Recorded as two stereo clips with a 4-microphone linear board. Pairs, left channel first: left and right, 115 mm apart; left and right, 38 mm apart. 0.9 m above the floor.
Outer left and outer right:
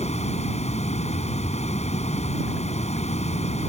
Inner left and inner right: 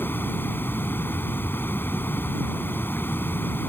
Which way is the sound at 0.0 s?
85° left.